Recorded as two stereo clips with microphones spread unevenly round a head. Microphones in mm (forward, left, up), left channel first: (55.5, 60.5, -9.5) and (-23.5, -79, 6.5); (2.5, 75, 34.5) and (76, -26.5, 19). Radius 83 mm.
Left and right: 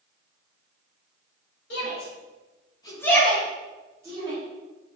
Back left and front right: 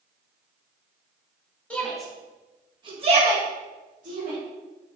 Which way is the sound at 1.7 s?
45° left.